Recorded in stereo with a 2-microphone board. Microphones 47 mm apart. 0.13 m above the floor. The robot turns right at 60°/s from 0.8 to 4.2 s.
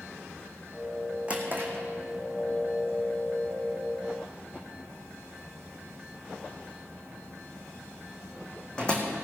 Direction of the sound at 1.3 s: 25° right (ahead or behind).